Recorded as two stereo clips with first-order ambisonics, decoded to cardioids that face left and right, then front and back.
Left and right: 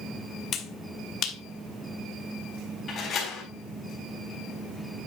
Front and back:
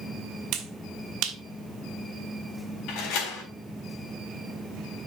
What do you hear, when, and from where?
0.5 s a finger snap: 145° left, 2.0 m
2.9 s a door slam: 30° left, 3.5 m